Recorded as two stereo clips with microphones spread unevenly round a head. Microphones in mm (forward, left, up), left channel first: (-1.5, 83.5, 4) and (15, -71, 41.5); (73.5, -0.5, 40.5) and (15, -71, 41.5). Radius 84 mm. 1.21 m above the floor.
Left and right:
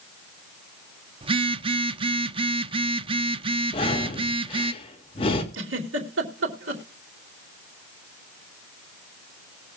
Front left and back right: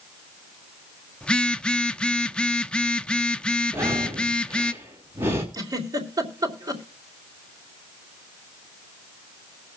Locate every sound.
1.2 s a phone buzzing: 25° right, 0.8 m
3.7 s breathing: 155° left, 2.5 m
5.5 s a giggle: 85° right, 3 m